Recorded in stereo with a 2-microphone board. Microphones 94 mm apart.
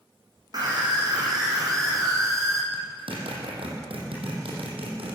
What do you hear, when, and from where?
0.5 s a scream: 45° right (ahead or behind), 8.5 m; by 2.6 s 35° right (ahead or behind), 7 m
2.7 s a zipper: 75° right (ahead or behind), 5 m